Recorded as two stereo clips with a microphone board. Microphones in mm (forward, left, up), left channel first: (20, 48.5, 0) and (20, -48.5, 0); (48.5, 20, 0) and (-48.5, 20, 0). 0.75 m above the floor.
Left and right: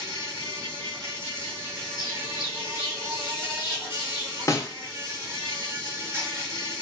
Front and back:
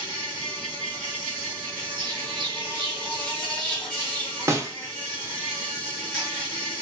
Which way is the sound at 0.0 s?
75° right.